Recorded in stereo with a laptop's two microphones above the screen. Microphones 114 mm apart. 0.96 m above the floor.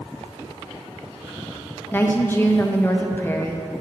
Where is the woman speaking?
20° left (ahead or behind), 0.5 m.